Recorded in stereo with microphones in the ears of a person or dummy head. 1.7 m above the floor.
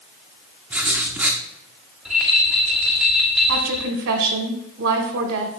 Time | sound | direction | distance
0.7 | writing | 5° right (ahead or behind) | 0.7 m
2.0 | a rattle | 5° right (ahead or behind) | 1.4 m
3.5 | a woman speaking | 65° right (ahead or behind) | 1.9 m